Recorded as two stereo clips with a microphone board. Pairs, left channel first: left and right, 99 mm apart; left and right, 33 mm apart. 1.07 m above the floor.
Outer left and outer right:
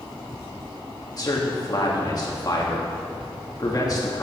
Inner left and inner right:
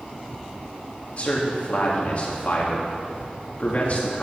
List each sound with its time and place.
1.1 s a man speaking: 40° left (ahead or behind), 2 m